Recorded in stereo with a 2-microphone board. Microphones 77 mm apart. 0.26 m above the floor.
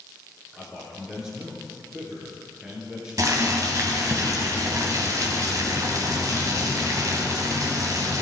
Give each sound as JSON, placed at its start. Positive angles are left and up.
{"t": 0.5, "sound": "a man speaking", "side_deg": -10, "distance_m": 3.5}
{"t": 3.2, "sound": "boiling", "side_deg": -50, "distance_m": 1.7}